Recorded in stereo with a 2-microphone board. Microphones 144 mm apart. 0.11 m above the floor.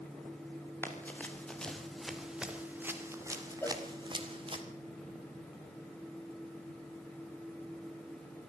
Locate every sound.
0.8 s running footsteps: 15° left (ahead or behind), 4 m; by 4.6 s 40° right (ahead or behind), 3.5 m
3.6 s a cowbell: 15° left (ahead or behind), 1.5 m